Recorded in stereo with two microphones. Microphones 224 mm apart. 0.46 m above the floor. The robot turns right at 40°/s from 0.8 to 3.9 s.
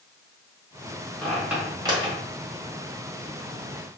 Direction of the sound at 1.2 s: 5° left (ahead or behind).